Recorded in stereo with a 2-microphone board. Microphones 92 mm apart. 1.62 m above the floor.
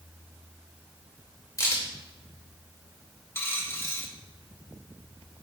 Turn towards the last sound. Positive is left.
turn(degrees=25)  # may be behind; listen again after turning